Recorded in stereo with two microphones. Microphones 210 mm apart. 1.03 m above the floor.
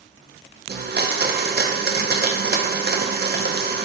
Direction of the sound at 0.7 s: 50° right (ahead or behind).